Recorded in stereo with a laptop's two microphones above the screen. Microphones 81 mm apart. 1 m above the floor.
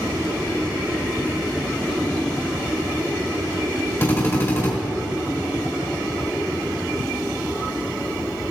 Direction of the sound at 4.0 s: 35° left (ahead or behind).